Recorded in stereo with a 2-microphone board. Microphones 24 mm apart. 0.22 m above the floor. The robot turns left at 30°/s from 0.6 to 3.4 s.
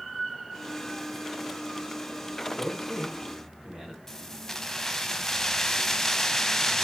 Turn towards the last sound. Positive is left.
turn(degrees=20)  # may be behind; listen again after turning